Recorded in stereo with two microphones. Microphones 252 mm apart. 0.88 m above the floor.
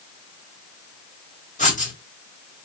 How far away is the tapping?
No tapping in this recording.